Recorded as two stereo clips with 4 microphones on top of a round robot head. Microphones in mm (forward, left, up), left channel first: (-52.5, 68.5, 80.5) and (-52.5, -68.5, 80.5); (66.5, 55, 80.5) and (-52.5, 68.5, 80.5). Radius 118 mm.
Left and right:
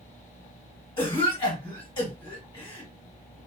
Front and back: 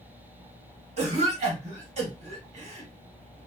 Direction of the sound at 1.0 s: 145° left.